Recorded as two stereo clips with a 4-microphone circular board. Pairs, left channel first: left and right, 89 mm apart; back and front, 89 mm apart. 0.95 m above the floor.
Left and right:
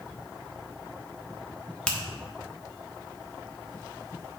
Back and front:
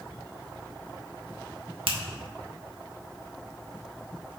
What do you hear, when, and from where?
1.9 s a finger snap: 10° left, 1.3 m